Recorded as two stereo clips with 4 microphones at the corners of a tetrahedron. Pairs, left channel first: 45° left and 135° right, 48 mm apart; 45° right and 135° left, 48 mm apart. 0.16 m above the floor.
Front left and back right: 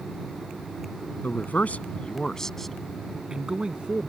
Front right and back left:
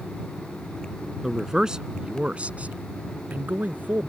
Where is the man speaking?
55° left; by 4.1 s 170° left.